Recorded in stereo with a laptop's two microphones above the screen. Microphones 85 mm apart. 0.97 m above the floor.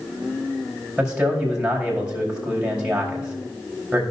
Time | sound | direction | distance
1.0 | a man speaking | 10° right (ahead or behind) | 4.5 m